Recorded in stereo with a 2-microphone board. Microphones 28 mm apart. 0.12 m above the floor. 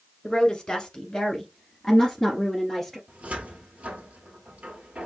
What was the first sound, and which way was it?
A woman speaking, 15° left (ahead or behind).